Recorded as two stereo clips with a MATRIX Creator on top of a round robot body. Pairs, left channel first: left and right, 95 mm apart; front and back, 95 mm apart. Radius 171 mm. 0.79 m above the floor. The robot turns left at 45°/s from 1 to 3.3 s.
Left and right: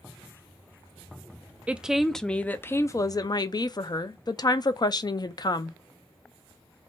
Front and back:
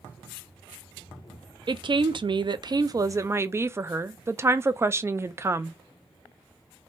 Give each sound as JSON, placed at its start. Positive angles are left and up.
{"t": 1.7, "sound": "a woman speaking", "azimuth_deg": -165, "distance_m": 0.5}